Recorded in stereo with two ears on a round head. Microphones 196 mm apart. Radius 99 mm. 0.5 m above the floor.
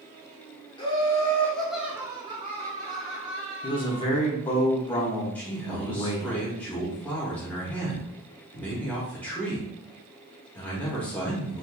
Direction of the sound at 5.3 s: 5° left (ahead or behind).